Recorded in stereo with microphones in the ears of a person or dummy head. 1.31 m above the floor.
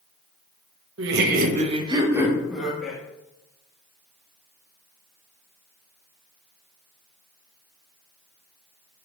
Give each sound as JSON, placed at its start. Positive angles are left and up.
{"t": 1.0, "sound": "laughter", "side_deg": -75, "distance_m": 1.2}